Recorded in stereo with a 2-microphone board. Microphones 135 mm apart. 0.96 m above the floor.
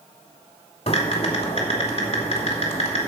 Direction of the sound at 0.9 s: 50° left (ahead or behind).